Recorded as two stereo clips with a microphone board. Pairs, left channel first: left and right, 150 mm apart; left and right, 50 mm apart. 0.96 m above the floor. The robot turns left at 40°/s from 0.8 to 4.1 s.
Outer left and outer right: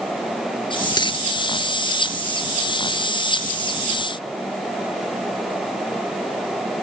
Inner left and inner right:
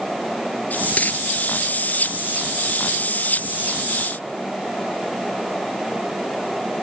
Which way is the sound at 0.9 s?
25° left (ahead or behind).